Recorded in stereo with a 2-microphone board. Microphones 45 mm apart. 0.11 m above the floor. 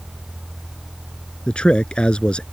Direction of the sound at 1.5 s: 25° left (ahead or behind).